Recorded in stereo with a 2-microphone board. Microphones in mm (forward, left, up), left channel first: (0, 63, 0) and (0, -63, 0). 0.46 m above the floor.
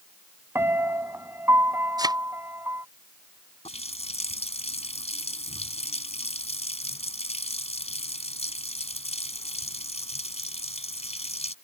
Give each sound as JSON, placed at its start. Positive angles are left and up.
{"t": 0.6, "sound": "a piano", "side_deg": -20}
{"t": 2.0, "sound": "a thud", "side_deg": -30}
{"t": 3.6, "sound": "a running tap", "side_deg": 60}